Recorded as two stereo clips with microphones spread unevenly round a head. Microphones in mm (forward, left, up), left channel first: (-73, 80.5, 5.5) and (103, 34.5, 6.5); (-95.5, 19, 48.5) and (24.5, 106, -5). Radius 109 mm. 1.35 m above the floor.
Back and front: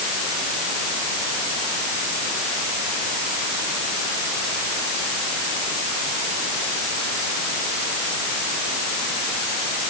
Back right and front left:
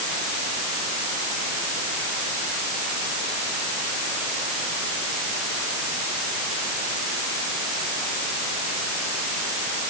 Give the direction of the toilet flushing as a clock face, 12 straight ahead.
No toilet flushing in this recording.